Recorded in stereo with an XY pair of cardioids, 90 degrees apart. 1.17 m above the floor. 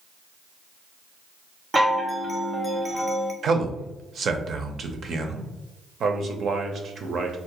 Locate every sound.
1.7 s a chime: 20° right, 0.6 m
3.4 s a man speaking: 60° right, 0.6 m
6.0 s a man speaking: 60° right, 0.6 m